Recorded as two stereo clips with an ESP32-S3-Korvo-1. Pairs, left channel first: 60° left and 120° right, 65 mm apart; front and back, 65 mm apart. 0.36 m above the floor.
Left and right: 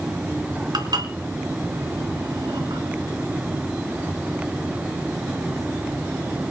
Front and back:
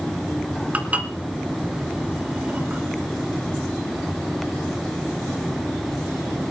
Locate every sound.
0.7 s dishes clattering: 110° right, 2.5 m